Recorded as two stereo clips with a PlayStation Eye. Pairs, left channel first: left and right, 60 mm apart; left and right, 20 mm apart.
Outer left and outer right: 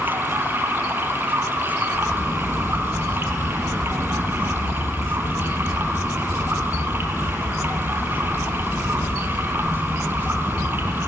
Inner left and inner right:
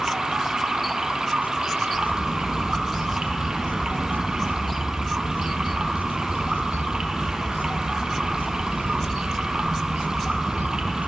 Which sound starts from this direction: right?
Running water, at 0.0 s.